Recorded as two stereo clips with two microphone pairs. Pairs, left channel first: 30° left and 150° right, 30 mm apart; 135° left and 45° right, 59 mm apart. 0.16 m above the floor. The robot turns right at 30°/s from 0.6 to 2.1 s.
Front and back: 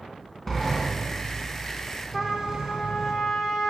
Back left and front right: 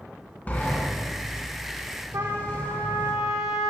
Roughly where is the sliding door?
Left.